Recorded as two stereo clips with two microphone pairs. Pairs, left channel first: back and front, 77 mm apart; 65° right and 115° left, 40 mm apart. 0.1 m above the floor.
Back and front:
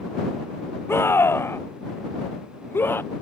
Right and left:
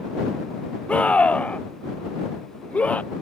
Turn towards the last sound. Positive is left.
turn(degrees=-120)